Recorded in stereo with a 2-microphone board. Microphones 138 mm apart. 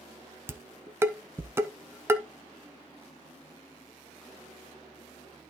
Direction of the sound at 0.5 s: 15° right (ahead or behind).